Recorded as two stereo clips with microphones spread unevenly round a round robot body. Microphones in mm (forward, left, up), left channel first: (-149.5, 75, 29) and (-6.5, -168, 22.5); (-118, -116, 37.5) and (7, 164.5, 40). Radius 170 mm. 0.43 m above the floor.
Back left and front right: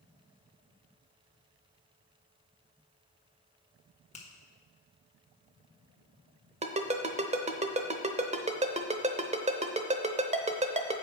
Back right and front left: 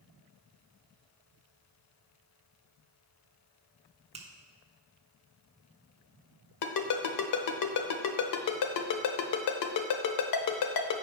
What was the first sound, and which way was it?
A finger snap, 100° left.